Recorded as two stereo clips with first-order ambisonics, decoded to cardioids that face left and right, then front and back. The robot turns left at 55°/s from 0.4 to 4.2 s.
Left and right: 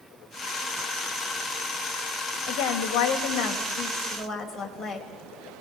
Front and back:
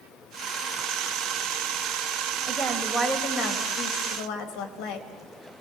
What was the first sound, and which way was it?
A woman speaking, 100° left.